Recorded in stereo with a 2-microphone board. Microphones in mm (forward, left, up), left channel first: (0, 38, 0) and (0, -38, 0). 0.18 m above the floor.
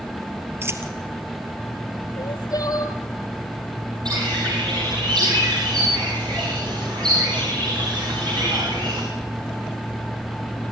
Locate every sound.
0.6 s a dropped coin: 35° right (ahead or behind), 1.9 m
2.2 s crying: 55° left (ahead or behind), 1.8 m
4.0 s a bird: 75° right (ahead or behind), 8 m